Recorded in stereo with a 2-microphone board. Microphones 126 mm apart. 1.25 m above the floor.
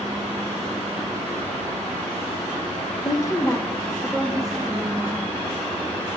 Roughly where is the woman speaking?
Left.